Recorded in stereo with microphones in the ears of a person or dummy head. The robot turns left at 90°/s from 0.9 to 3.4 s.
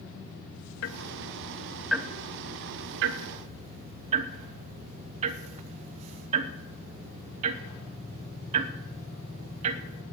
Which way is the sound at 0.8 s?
65° left (ahead or behind).